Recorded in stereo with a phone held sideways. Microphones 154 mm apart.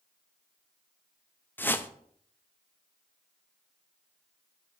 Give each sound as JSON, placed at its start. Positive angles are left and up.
{"t": 1.6, "sound": "a whoosh", "side_deg": 15, "distance_m": 0.6}